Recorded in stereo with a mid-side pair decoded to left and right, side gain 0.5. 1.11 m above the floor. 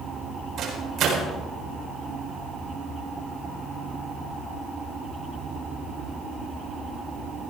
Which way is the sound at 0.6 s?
60° right.